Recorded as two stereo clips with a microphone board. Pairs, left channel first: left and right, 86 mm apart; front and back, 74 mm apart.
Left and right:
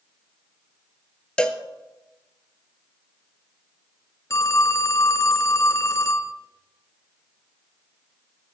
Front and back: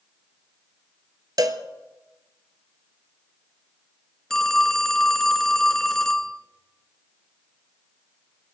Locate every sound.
1.4 s a cowbell: 170° left, 1.1 m
4.3 s a phone ringing: 80° left, 1.0 m